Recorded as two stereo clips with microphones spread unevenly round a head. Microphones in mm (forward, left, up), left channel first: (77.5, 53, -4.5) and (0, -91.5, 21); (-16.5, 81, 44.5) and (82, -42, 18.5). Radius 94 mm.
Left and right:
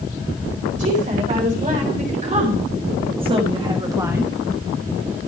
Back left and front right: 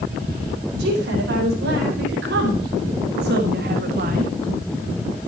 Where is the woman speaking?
75° right, 4.5 m; by 4.3 s 30° right, 1.2 m.